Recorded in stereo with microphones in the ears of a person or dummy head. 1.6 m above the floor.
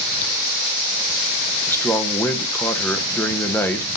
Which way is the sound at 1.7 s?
15° left (ahead or behind).